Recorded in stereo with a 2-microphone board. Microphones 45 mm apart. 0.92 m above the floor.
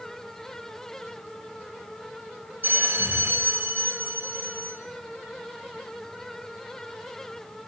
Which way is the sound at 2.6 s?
55° right (ahead or behind).